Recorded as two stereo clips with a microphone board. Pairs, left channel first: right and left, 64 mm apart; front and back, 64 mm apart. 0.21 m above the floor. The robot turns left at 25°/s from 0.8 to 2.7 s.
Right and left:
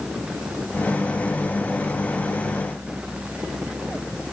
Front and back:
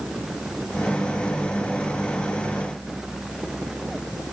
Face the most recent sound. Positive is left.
No sound to turn to.